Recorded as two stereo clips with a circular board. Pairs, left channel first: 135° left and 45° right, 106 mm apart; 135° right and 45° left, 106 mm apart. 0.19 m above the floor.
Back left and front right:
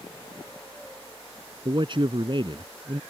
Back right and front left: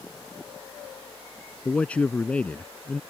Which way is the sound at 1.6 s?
60° right.